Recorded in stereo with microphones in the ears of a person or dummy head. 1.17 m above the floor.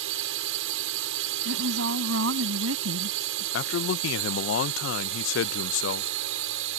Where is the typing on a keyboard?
I don't hear typing on a keyboard.